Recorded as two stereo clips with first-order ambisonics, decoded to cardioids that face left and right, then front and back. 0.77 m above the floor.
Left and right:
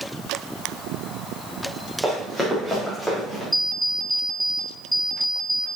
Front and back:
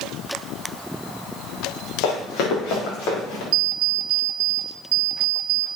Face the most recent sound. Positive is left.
turn(degrees=-170)